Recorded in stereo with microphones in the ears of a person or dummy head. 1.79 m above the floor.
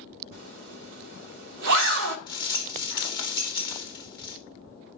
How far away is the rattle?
About 1.0 m.